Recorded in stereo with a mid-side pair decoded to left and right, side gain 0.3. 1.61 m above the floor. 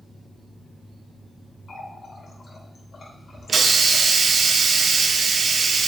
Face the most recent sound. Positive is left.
turn(degrees=-65)